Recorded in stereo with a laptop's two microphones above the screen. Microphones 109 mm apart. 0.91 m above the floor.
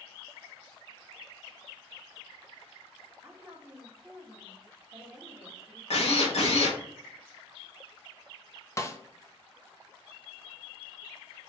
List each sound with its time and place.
3.2 s a woman speaking: 5° right (ahead or behind), 1.1 m
5.9 s a drill: 70° left (ahead or behind), 1.7 m
8.8 s a snare drum: 30° left (ahead or behind), 0.6 m